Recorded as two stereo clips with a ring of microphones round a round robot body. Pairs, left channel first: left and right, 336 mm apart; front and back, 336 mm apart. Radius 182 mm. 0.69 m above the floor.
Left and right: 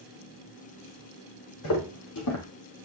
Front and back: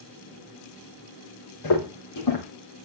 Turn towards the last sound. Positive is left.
turn(degrees=45)